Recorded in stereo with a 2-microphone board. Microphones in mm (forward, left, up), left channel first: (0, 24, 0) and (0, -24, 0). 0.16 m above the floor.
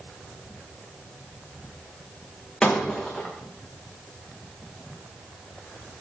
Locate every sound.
2.6 s breaking glass: 15° left (ahead or behind), 5 m